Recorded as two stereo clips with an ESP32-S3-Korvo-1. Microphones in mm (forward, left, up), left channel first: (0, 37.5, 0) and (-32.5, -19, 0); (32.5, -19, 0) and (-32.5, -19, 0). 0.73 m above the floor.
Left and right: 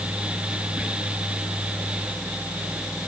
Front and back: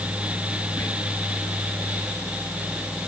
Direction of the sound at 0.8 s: 55° right.